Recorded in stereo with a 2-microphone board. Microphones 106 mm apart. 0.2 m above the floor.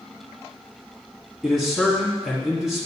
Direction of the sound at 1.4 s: 5° right (ahead or behind).